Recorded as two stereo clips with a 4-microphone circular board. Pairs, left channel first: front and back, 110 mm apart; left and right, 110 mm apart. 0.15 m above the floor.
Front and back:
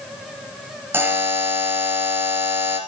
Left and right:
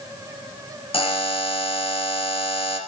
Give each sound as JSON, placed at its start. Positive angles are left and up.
{"t": 0.9, "sound": "a buzzer", "azimuth_deg": 110, "distance_m": 2.5}